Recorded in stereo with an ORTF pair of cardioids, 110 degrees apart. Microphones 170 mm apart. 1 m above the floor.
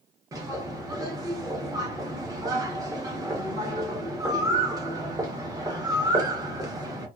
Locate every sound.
0.3 s a bird: 20° right, 0.9 m